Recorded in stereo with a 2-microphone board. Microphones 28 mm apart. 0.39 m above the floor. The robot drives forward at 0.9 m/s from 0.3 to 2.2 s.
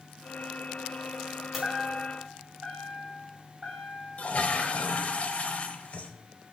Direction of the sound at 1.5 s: 10° right (ahead or behind).